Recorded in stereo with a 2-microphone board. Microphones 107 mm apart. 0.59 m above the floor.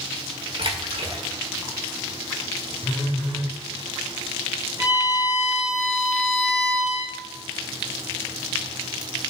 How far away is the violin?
About 7 m.